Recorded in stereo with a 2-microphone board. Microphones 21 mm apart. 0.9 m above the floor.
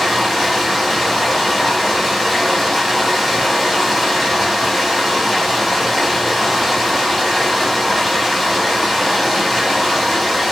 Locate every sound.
0.0 s running water: centre (ahead or behind), 0.8 m